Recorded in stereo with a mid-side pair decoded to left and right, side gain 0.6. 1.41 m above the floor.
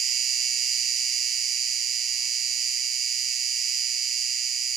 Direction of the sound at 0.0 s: 50° right.